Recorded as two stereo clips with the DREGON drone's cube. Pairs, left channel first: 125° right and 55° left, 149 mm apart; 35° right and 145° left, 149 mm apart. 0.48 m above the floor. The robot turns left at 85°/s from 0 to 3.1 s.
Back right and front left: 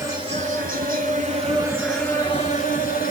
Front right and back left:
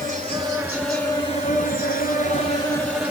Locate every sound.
0.0 s an insect: 130° left, 3 m; by 3.1 s 135° right, 3 m